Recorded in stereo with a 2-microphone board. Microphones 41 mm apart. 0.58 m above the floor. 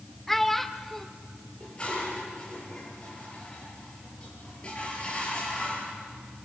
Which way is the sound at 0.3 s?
5° left (ahead or behind).